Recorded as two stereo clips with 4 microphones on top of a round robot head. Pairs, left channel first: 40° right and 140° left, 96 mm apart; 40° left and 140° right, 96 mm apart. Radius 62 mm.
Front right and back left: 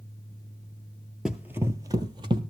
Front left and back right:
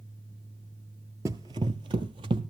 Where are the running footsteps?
140° right, 0.6 m; by 2.4 s straight behind, 1.0 m.